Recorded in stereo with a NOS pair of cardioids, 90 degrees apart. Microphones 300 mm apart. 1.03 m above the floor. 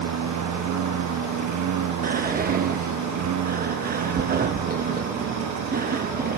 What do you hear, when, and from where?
0.0 s a lawn mower: 70° right; by 6.4 s 75° right
2.0 s whispering: 30° right